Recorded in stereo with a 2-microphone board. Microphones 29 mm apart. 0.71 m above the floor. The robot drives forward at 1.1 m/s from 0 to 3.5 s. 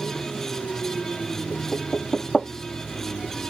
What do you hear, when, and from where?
1.5 s knocking: 5° left (ahead or behind)